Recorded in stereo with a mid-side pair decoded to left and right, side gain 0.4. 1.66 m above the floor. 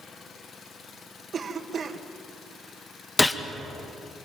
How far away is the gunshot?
About 1.8 m.